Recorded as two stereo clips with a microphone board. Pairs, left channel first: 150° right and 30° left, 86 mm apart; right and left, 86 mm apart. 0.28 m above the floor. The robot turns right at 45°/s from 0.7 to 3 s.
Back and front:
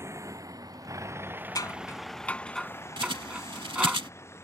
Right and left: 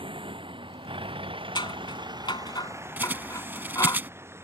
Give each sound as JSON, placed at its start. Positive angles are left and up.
{"t": 0.0, "sound": "a vehicle", "azimuth_deg": 85}
{"t": 1.6, "sound": "scissors", "azimuth_deg": -110}
{"t": 3.0, "sound": "a bird", "azimuth_deg": 20}